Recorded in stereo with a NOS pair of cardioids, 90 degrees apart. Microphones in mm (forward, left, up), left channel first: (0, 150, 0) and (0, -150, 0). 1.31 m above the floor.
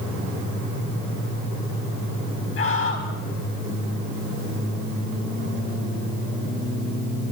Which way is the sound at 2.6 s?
45° left.